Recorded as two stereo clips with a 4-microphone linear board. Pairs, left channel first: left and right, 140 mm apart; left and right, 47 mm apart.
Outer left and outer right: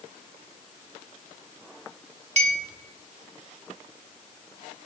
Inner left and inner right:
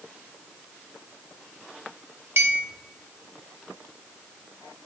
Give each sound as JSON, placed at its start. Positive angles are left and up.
{"t": 2.4, "sound": "a clink", "side_deg": -55, "distance_m": 0.9}